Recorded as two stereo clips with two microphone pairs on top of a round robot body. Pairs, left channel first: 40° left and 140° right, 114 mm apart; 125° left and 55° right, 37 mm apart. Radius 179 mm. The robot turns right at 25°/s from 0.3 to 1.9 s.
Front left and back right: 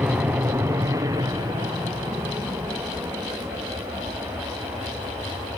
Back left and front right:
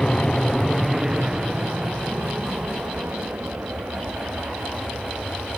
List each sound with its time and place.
0.0 s an aircraft: 170° left; by 5.6 s 70° right